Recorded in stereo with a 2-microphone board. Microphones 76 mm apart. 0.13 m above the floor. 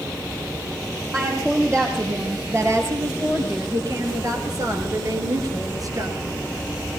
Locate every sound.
1.1 s a woman speaking: 30° right (ahead or behind), 3.5 m; by 6.2 s 50° right (ahead or behind), 2 m